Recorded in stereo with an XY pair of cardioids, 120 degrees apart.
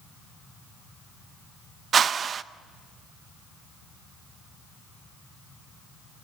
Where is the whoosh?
40° right, 0.6 m.